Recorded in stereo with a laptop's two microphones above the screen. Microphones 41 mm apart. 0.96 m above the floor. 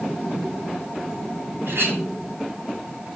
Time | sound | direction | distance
1.7 | a clink | 70° right (ahead or behind) | 3.5 m